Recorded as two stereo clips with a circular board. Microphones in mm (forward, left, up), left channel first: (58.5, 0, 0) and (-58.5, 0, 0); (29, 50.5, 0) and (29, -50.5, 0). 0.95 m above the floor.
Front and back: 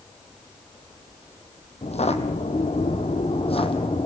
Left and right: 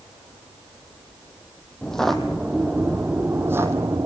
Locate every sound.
1.8 s footsteps: 10° left, 2 m; by 4.1 s 35° right, 2 m